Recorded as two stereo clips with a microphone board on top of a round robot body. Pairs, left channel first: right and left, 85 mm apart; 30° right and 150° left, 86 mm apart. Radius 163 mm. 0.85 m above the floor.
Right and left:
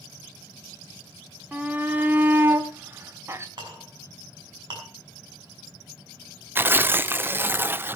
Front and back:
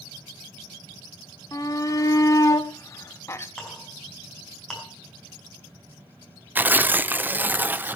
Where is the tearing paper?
115° left, 0.8 m.